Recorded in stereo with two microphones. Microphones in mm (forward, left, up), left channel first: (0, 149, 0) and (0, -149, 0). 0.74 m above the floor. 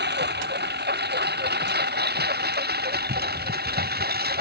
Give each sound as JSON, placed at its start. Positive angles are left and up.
{"t": 0.0, "sound": "a lawn mower", "side_deg": -35}